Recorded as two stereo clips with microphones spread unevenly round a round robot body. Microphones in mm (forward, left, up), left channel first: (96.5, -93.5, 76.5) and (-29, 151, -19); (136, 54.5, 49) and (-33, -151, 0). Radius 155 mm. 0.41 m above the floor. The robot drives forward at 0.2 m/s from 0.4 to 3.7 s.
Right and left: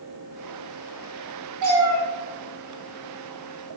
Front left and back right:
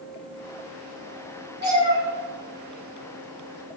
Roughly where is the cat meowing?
Behind left.